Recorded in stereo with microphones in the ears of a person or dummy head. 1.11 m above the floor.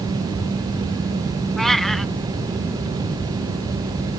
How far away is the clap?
No clap in this recording.